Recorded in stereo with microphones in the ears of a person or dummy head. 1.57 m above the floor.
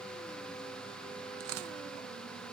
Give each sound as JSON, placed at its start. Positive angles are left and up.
{"t": 1.4, "sound": "tearing paper", "side_deg": -75, "distance_m": 0.9}